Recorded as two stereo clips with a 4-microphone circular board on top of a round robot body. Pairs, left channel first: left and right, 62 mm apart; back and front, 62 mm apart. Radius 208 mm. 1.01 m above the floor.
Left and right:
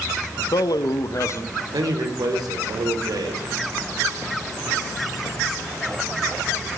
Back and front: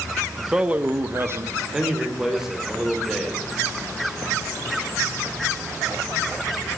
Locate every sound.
0.4 s a man speaking: 85° left, 1.1 m; by 1.6 s 45° left, 2 m
1.7 s a man speaking: 85° right, 4.5 m